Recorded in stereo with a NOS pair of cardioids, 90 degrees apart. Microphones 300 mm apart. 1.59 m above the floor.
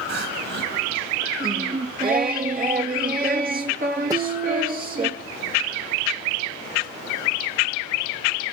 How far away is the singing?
About 3 m.